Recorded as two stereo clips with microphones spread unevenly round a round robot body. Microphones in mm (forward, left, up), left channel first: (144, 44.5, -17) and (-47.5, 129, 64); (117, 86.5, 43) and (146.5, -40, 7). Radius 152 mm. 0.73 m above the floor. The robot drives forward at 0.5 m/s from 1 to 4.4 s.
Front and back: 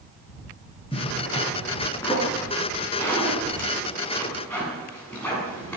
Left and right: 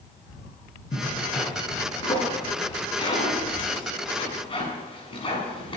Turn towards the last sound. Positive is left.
turn(degrees=60)